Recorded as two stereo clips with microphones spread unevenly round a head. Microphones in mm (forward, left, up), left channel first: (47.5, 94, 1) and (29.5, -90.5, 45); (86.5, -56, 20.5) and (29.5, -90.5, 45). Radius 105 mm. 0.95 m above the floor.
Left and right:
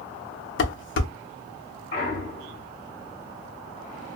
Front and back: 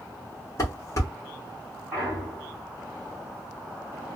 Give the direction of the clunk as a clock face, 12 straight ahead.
8 o'clock.